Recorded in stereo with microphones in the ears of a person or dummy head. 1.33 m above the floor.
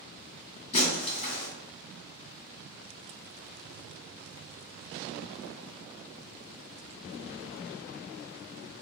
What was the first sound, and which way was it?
Breaking glass, 40° left (ahead or behind).